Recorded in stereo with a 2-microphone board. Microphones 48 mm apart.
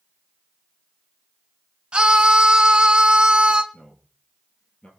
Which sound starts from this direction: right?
A scream, at 1.9 s.